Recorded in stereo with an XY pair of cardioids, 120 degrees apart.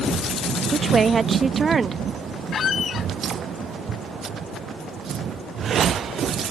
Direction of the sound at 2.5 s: 45° left.